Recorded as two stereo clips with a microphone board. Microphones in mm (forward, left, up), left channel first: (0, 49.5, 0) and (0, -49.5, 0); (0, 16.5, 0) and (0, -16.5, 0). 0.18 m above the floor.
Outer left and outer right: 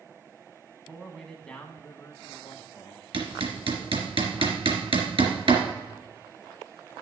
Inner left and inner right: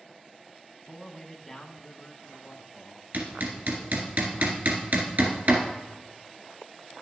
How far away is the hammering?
About 1.6 m.